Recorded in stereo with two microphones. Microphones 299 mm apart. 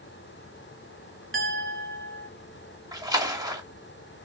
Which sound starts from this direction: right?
A clink, at 1.3 s.